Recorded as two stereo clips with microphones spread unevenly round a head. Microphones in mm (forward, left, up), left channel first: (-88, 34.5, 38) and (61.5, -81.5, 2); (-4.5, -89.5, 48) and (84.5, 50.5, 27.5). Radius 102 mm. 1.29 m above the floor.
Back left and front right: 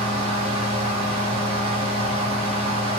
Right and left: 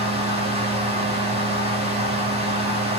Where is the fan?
15° left, 1.8 m.